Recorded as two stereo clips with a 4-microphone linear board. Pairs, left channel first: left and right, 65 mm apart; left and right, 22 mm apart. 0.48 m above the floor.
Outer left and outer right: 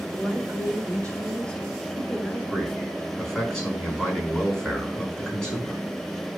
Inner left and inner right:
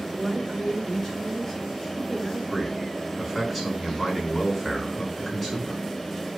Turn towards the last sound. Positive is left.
turn(degrees=10)  # may be behind; listen again after turning